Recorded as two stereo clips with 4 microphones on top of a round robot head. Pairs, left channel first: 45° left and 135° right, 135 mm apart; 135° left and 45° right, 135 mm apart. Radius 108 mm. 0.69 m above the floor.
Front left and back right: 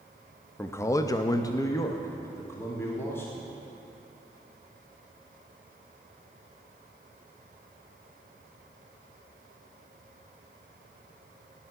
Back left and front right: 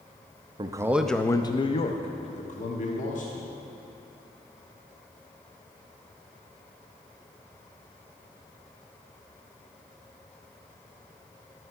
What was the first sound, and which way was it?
A man speaking, 20° right.